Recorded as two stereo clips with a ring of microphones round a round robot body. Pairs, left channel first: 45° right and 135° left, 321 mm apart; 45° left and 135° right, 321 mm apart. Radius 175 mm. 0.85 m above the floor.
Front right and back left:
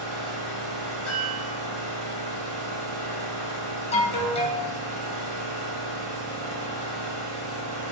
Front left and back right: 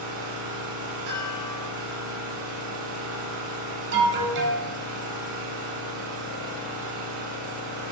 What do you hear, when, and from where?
0.0 s an engine running: straight behind, 1.3 m
1.1 s a chime: 130° right, 1.1 m
3.9 s an alarm: 105° right, 0.5 m